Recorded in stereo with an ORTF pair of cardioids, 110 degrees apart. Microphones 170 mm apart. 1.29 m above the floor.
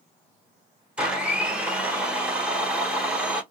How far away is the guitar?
I don't hear a guitar.